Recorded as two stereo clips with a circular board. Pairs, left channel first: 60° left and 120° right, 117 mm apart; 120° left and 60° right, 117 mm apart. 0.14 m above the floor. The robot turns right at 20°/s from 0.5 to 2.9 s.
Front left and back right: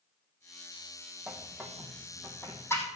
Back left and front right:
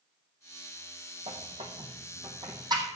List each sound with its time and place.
1.3 s a squeak: 35° right, 2.5 m; by 2.9 s 5° right, 2.5 m